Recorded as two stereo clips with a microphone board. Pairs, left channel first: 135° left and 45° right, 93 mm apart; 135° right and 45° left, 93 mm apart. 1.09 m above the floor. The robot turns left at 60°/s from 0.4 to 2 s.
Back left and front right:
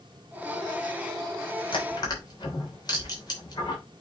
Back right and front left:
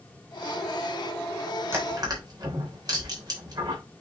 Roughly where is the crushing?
Left.